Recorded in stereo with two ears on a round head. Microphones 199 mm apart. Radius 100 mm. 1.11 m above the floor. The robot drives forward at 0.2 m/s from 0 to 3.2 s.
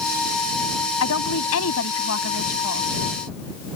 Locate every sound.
1.0 s a woman speaking: 75° left (ahead or behind); by 2.9 s 70° left (ahead or behind)